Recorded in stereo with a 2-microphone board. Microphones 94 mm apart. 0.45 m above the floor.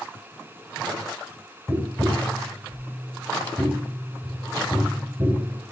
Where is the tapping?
20° right (ahead or behind), 1.8 m.